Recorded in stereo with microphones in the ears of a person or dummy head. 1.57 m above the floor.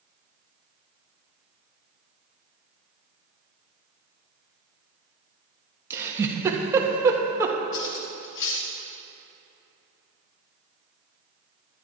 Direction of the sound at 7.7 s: 60° left (ahead or behind).